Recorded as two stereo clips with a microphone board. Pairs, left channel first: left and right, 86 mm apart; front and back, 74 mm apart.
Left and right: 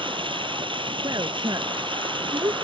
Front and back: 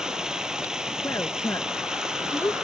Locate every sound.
0.0 s running water: 100° right
1.0 s a woman speaking: 50° right